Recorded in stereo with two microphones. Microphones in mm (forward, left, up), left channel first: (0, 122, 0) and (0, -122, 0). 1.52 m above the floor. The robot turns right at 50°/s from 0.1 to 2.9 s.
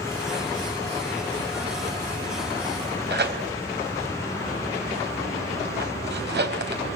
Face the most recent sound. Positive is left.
turn(degrees=-45)  # may be behind; listen again after turning